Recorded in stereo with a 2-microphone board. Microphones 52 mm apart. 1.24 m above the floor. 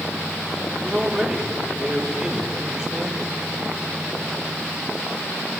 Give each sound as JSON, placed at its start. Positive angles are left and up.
{"t": 0.8, "sound": "a man speaking", "side_deg": -15, "distance_m": 5.0}